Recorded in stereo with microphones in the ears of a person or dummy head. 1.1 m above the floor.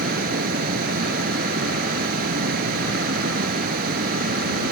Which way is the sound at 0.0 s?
55° right (ahead or behind).